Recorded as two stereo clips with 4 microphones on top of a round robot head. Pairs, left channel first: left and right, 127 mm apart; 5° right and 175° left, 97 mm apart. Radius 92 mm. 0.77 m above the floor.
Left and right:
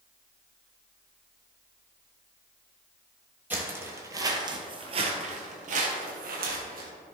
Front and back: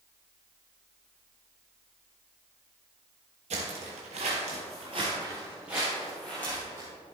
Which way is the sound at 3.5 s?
165° right.